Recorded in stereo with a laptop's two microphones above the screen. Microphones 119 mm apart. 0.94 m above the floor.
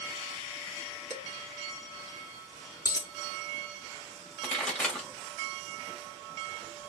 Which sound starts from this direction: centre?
A pop, at 4.4 s.